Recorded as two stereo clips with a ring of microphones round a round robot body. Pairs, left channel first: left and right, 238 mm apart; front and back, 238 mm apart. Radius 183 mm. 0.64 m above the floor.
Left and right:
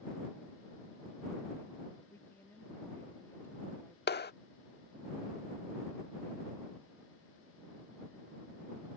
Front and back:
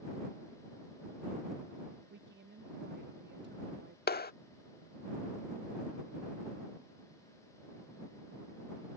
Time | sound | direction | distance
2.1 | a woman speaking | 170° left | ?
4.1 | a clap | 45° left | ?